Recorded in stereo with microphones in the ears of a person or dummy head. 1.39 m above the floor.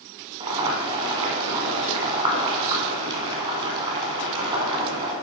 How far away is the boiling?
About 1.8 m.